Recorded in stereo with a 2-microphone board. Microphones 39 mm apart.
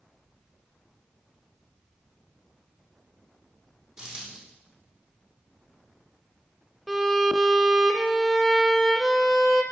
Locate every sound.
4.0 s a dropped coin: 25° right (ahead or behind), 2.5 m
6.9 s a violin: centre (ahead or behind), 0.8 m